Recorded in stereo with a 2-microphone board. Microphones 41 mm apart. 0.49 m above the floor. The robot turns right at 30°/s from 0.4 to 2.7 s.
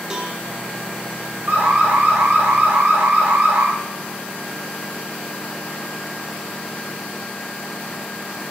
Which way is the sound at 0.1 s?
15° right (ahead or behind).